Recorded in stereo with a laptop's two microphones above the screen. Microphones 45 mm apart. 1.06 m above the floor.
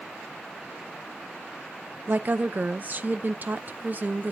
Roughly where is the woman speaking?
Right.